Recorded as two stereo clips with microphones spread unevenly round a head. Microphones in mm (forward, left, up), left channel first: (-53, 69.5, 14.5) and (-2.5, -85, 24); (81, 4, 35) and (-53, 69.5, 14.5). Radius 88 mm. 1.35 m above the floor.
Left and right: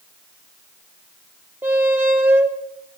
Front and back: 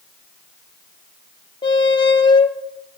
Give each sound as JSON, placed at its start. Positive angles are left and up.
{"t": 1.6, "sound": "a squeak", "azimuth_deg": -5, "distance_m": 1.0}